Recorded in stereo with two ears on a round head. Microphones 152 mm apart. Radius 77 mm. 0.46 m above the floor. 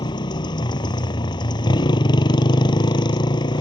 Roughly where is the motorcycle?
Left.